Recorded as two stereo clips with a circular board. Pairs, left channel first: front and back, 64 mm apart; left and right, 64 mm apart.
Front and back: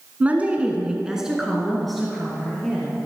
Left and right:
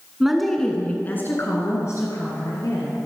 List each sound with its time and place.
0.2 s a woman speaking: 160° right, 1.3 m; by 3.0 s 80° left, 3 m